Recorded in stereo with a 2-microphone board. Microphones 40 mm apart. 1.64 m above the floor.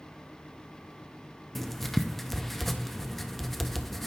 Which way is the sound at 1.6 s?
5° left (ahead or behind).